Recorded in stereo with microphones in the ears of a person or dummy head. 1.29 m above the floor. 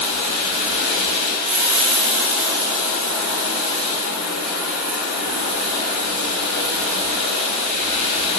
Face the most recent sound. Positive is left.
turn(degrees=-40)  # may be behind; listen again after turning